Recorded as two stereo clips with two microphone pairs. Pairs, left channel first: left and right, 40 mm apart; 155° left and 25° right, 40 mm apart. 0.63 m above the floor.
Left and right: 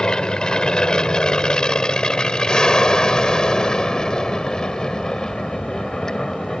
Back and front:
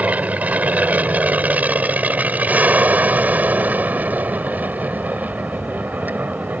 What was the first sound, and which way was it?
An aircraft, 20° left.